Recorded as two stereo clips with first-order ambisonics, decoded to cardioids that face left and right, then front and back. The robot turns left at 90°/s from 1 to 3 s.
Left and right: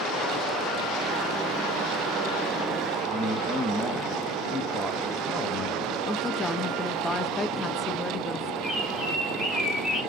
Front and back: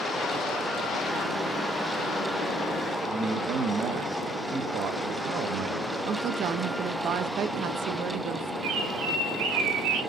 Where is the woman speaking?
165° left, 0.5 m.